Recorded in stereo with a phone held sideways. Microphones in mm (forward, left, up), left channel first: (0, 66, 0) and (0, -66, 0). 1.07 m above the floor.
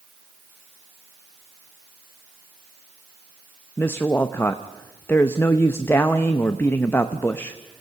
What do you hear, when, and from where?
3.8 s a woman speaking: 15° left (ahead or behind), 0.8 m